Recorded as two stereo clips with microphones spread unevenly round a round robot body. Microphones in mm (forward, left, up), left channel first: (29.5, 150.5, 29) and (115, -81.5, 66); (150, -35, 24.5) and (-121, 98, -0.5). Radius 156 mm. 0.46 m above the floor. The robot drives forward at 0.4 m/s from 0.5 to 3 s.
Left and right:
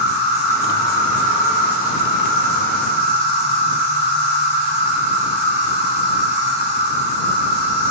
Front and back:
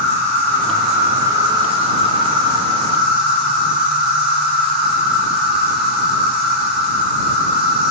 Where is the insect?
110° right, 1.0 m; by 7.9 s 150° right, 1.6 m.